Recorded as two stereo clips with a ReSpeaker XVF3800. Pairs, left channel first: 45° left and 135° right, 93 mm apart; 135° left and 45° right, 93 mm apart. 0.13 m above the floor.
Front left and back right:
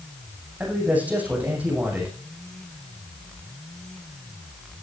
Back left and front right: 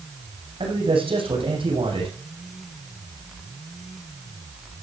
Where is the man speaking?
60° right, 8 m.